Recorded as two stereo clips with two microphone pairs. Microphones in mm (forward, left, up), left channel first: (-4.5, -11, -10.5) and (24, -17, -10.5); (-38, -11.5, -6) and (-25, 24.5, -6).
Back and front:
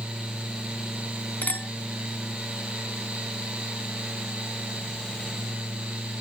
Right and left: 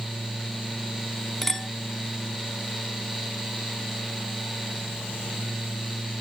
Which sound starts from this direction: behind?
A clink, at 1.4 s.